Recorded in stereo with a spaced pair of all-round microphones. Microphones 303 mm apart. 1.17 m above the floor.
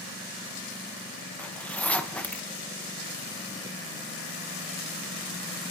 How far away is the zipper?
About 0.8 m.